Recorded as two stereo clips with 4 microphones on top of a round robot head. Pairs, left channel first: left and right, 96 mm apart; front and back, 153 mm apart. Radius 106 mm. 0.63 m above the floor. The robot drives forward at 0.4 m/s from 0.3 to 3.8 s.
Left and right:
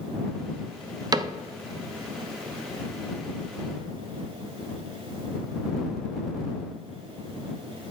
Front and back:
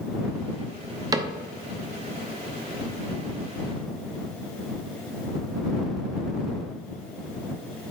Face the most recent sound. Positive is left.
turn(degrees=-165)